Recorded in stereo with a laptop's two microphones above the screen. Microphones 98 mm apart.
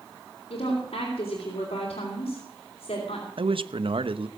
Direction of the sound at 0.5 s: 80° left.